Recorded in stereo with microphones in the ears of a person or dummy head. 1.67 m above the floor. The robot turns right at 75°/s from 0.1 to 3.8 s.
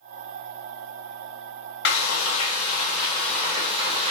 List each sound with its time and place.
1.9 s frying: 65° left, 0.7 m; by 4.1 s 150° right, 0.7 m